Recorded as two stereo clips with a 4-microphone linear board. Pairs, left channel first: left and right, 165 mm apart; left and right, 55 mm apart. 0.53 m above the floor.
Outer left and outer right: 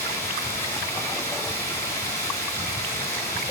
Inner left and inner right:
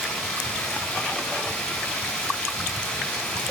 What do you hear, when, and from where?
0.0 s running water: 15° left (ahead or behind), 4 m